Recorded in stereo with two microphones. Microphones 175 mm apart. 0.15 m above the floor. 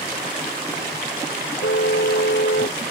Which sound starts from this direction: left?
A car horn, at 1.6 s.